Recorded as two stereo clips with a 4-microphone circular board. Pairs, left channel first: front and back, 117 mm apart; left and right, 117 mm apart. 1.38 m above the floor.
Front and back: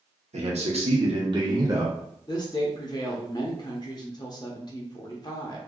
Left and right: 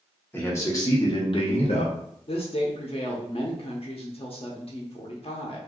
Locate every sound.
0.3 s a man speaking: 160° left, 1.2 m; by 1.9 s 115° left, 1.2 m
2.3 s a woman speaking: 50° left, 0.7 m